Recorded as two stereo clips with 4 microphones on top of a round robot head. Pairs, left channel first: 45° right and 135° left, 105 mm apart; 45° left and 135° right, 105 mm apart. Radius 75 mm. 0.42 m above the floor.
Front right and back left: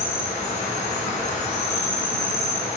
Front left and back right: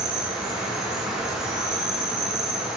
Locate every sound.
0.0 s an insect: 50° right, 3 m